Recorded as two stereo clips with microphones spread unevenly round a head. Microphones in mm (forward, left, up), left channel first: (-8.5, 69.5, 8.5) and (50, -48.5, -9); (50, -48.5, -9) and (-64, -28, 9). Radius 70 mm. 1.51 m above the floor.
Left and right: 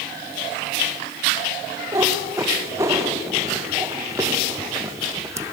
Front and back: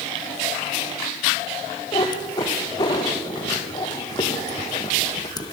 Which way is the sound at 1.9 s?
5° right.